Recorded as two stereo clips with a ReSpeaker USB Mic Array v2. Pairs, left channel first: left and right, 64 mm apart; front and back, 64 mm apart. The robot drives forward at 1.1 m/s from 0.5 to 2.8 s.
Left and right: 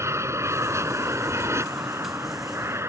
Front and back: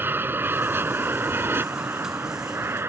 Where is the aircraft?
125° right; by 2.9 s 130° right.